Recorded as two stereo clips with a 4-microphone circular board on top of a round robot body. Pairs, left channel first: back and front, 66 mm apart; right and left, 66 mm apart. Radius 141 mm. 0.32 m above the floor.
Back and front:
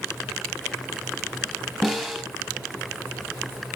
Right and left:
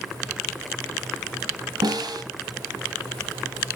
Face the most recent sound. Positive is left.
turn(degrees=95)